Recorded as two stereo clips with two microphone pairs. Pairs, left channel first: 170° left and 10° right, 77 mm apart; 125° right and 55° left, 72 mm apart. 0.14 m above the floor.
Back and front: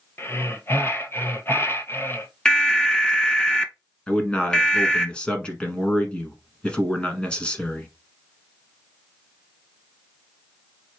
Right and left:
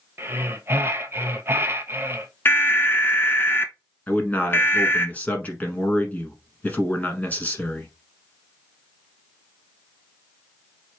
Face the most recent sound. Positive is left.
turn(degrees=-130)